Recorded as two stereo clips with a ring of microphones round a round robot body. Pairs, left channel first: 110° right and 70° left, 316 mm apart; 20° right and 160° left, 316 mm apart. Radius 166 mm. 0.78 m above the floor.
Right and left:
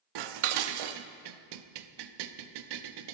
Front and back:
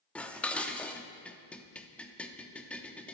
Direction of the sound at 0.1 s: 65° left.